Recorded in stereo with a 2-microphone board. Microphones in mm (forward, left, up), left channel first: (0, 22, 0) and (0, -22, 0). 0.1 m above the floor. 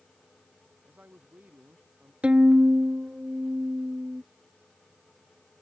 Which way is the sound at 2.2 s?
30° right (ahead or behind).